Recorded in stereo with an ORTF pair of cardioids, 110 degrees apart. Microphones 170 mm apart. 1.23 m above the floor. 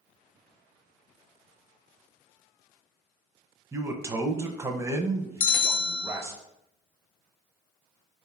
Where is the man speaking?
15° right, 0.5 m.